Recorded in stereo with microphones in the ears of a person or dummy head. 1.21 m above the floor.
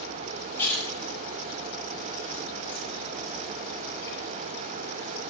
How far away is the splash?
About 6 m.